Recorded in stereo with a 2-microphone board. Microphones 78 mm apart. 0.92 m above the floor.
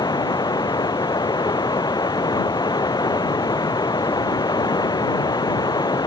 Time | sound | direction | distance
0.0 | running water | 65° left (ahead or behind) | ?